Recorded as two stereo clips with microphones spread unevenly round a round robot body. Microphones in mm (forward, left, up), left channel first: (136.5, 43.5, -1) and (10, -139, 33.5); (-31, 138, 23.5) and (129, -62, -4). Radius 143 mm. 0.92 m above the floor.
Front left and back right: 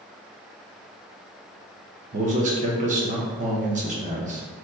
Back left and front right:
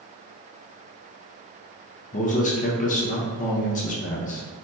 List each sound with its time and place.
2.1 s a man speaking: 175° right, 0.6 m